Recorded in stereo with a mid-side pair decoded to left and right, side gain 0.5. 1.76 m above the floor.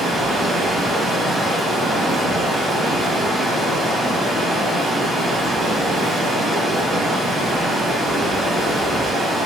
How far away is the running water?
About 1.7 m.